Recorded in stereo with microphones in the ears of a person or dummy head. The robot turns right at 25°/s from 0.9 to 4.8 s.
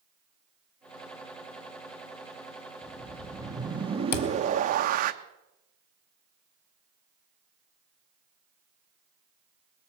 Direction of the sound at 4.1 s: 60° left (ahead or behind).